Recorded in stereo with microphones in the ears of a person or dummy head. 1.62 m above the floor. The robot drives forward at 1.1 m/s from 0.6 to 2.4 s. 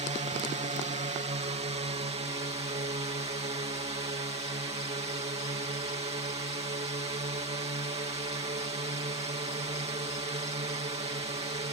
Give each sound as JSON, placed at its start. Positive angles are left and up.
{"t": 0.0, "sound": "a drone", "side_deg": -30}